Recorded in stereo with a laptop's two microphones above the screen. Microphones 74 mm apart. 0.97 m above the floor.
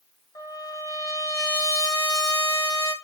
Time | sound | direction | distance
0.3 | a trumpet | 60° left (ahead or behind) | 1.1 m